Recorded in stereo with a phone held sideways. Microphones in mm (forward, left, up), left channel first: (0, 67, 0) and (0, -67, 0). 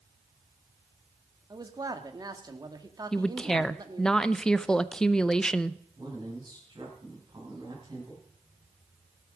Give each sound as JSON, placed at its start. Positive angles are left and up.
{"t": 1.5, "sound": "a man speaking", "side_deg": -30, "distance_m": 1.4}
{"t": 3.1, "sound": "a woman speaking", "side_deg": 5, "distance_m": 0.5}
{"t": 6.0, "sound": "a man speaking", "side_deg": -35, "distance_m": 9.0}